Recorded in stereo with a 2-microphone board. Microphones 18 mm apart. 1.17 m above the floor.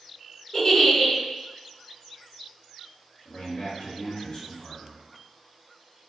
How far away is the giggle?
About 1.0 m.